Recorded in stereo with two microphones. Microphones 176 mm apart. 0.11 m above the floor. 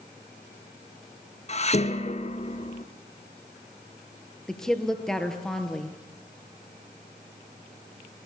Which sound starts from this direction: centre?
A woman speaking, at 4.5 s.